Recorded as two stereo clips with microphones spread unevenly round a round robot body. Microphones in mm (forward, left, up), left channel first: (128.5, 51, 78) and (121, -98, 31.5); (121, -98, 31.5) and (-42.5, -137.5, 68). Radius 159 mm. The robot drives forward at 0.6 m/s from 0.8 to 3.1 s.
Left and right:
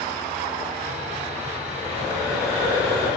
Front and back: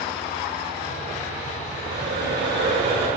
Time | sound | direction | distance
1.7 | breathing | 165° right | 1.3 m